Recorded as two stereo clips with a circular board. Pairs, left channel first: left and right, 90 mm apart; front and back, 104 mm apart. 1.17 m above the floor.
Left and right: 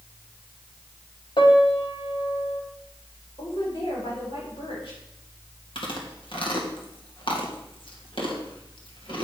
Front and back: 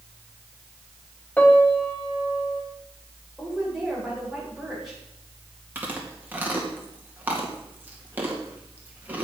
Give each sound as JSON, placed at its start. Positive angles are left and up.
{"t": 1.4, "sound": "a piano", "azimuth_deg": 75, "distance_m": 1.4}
{"t": 3.4, "sound": "a woman speaking", "azimuth_deg": 95, "distance_m": 5.0}
{"t": 5.8, "sound": "chewing", "azimuth_deg": 105, "distance_m": 2.0}